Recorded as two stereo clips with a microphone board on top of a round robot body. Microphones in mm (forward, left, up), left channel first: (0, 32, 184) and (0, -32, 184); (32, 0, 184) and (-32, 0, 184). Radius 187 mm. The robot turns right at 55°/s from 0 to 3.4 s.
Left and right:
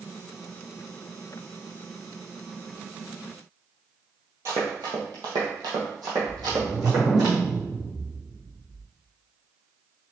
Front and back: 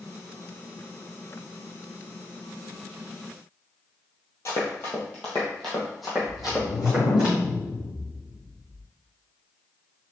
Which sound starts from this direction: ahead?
A whoosh, at 6.3 s.